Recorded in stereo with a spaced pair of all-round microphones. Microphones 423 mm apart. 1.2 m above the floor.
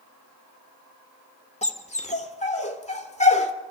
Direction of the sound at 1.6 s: 15° left (ahead or behind).